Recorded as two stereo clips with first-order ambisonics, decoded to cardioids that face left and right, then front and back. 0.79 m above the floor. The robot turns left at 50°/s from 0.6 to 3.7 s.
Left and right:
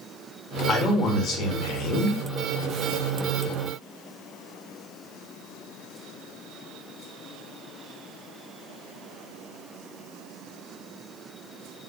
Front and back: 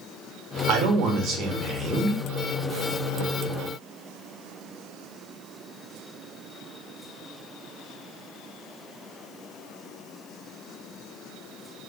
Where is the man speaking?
170° left, 0.7 m; by 2.2 s 95° left, 0.7 m.